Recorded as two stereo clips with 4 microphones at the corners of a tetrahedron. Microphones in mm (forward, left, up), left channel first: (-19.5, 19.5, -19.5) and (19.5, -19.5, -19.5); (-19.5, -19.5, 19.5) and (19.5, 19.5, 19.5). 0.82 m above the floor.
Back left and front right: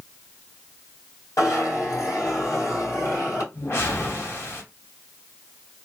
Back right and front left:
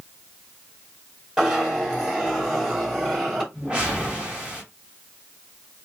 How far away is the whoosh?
About 1.5 m.